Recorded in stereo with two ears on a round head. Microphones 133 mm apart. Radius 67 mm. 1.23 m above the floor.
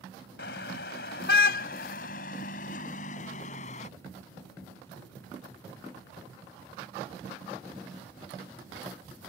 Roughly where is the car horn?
Left.